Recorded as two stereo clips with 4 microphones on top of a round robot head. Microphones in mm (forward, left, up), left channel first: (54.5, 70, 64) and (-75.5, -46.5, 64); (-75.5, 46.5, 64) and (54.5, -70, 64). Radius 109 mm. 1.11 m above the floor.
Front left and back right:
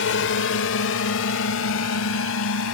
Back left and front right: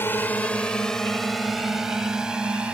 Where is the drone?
60° left; by 2.7 s 45° left.